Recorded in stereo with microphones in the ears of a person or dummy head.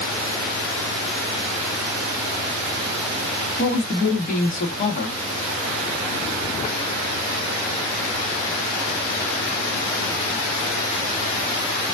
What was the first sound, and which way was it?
A woman speaking, 40° left (ahead or behind).